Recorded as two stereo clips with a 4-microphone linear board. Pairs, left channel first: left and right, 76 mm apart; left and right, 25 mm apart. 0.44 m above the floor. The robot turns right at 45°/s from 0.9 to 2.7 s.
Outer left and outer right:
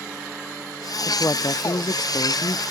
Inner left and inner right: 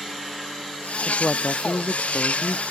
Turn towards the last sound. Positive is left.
turn(degrees=110)